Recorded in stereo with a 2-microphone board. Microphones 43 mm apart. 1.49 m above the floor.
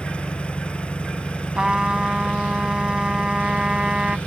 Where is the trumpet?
20° right (ahead or behind).